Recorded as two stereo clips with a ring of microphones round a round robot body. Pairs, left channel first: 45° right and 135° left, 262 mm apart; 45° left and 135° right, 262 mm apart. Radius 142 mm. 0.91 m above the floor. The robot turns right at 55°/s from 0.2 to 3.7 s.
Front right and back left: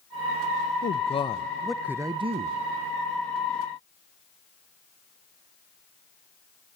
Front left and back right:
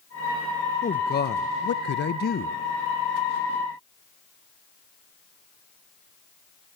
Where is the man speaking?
5° right, 0.6 m; by 2.6 s 90° left, 0.6 m.